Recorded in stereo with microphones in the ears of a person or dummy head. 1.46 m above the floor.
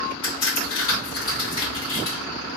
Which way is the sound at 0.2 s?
25° left (ahead or behind).